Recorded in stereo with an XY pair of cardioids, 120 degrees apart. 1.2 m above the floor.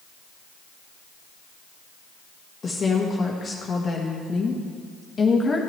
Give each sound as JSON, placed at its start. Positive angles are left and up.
{"t": 2.6, "sound": "a woman speaking", "azimuth_deg": 30, "distance_m": 1.3}